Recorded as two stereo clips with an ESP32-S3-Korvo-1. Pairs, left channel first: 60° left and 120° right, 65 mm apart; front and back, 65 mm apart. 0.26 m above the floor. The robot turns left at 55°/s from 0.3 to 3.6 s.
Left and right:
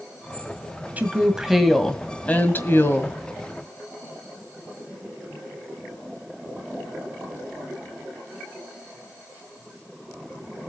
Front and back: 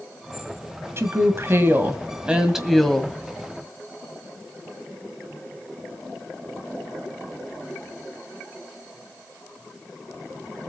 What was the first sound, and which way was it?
A woman speaking, 170° right.